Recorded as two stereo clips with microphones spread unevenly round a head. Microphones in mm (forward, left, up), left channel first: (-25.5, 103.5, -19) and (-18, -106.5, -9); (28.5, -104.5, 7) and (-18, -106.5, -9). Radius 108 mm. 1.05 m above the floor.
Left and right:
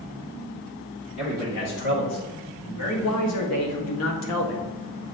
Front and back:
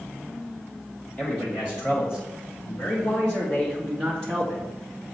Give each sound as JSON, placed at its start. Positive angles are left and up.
{"t": 1.2, "sound": "a man speaking", "azimuth_deg": 75, "distance_m": 3.0}